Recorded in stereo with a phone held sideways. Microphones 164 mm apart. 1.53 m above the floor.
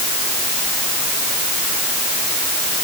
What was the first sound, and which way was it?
Only background noise.